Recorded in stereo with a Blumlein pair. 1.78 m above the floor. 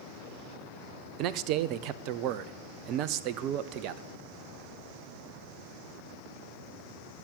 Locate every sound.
1.2 s a man speaking: 40° right, 0.7 m